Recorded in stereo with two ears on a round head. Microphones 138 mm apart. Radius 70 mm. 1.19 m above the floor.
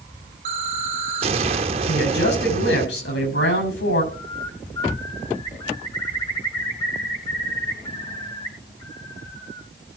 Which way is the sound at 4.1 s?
30° left (ahead or behind).